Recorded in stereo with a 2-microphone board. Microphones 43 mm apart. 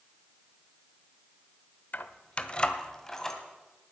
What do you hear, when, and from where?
1.9 s keys jangling: 50° left (ahead or behind), 0.7 m; by 3.4 s 10° left (ahead or behind), 1.7 m